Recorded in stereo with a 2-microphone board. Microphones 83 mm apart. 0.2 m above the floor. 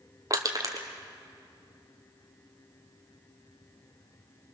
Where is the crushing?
45° right (ahead or behind), 2 m.